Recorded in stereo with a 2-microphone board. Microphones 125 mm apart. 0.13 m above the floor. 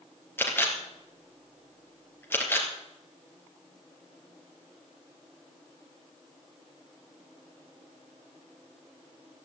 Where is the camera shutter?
15° left (ahead or behind), 3 m.